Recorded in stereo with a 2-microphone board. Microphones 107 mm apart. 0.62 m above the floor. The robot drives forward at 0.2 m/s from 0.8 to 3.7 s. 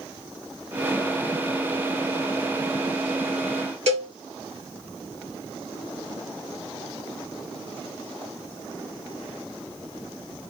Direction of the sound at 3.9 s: 70° right (ahead or behind).